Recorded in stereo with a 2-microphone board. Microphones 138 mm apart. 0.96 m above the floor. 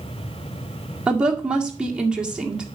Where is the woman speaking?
5° right (ahead or behind), 1.8 m.